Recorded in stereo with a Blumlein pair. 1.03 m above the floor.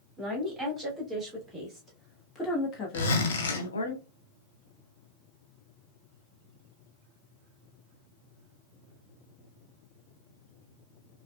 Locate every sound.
0.2 s a woman speaking: 10° right, 3 m; by 3.9 s 75° left, 1.3 m
2.9 s a zipper: 60° left, 1.4 m